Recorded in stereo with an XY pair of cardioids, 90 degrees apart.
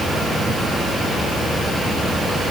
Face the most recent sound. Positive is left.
No sound to turn to.